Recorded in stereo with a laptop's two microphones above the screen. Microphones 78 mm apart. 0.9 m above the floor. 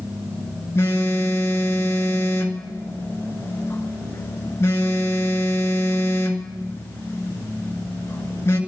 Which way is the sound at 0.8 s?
35° left (ahead or behind).